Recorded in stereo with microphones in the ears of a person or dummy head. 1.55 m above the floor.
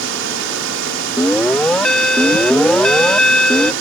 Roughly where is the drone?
Right.